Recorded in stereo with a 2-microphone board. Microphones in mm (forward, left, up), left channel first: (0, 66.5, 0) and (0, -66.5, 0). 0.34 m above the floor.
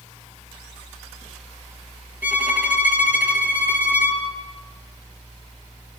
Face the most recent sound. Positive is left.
turn(degrees=-15)  # may be behind; listen again after turning